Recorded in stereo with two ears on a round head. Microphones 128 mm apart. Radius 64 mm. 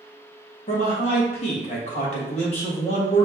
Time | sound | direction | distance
0.7 | a man speaking | 45° left (ahead or behind) | 1.3 m